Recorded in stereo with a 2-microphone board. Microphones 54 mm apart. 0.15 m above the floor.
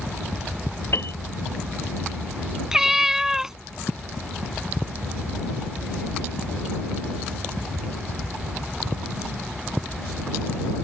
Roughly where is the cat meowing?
Centre.